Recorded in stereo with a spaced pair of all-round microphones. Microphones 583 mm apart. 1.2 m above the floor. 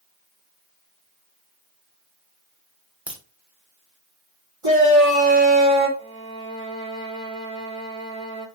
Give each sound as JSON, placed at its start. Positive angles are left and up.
{"t": 3.1, "sound": "a crack", "side_deg": 0, "distance_m": 1.1}
{"t": 4.6, "sound": "a shout", "side_deg": -50, "distance_m": 2.5}
{"t": 6.0, "sound": "a violin", "side_deg": 10, "distance_m": 1.0}